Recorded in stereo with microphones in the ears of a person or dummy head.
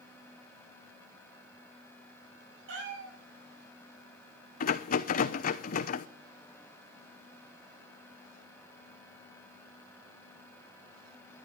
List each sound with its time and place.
2.7 s a cat meowing: 80° right, 8 m
4.6 s a rattle: 45° left (ahead or behind), 0.8 m